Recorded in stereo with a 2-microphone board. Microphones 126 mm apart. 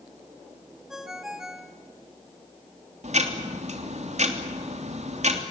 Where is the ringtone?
5° right (ahead or behind), 1.8 m.